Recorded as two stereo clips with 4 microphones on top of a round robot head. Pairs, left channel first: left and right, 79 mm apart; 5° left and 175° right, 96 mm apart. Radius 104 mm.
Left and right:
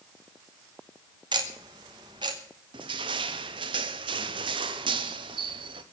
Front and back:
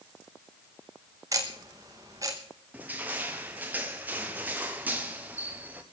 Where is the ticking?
115° right, 1.0 m.